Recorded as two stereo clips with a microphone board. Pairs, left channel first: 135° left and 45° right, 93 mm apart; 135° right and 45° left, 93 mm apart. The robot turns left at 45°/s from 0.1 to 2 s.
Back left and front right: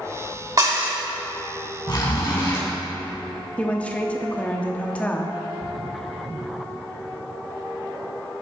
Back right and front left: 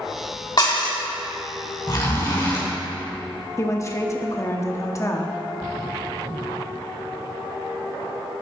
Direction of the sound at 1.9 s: 175° left.